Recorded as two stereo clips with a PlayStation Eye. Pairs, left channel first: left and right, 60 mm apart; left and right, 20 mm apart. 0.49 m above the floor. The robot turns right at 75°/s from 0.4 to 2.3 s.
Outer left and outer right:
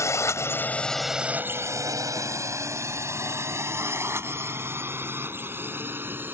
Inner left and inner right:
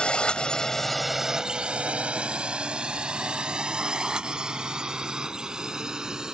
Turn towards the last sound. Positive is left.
turn(degrees=-35)  # may be behind; listen again after turning